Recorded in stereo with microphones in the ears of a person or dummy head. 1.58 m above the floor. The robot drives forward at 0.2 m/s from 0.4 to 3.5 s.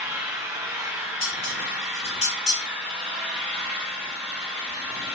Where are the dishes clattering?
40° left (ahead or behind), 1.1 m; by 2.6 s 35° left (ahead or behind), 1.2 m.